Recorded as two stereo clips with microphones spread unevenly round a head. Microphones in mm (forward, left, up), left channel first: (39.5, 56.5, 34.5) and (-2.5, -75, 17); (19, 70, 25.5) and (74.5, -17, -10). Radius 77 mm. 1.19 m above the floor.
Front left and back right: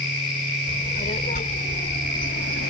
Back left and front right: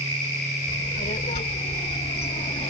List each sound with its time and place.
0.7 s a child speaking: 125° left; by 2.7 s 95° left